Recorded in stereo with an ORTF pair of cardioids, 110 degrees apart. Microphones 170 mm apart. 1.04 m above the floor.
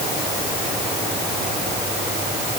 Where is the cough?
No cough in this recording.